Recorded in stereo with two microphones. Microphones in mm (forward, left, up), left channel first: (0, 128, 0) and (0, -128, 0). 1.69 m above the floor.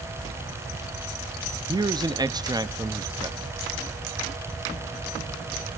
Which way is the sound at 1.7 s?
15° right (ahead or behind).